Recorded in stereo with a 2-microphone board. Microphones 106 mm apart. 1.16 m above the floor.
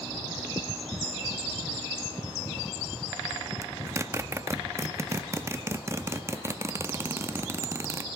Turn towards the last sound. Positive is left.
turn(degrees=-25)  # may be behind; listen again after turning